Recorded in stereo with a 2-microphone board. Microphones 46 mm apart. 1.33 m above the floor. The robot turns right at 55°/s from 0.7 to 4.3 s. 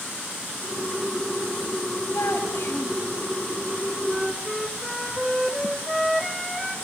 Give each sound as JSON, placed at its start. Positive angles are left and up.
{"t": 2.1, "sound": "a child speaking", "azimuth_deg": 100, "distance_m": 6.5}
{"t": 4.0, "sound": "a flute", "side_deg": -10, "distance_m": 2.0}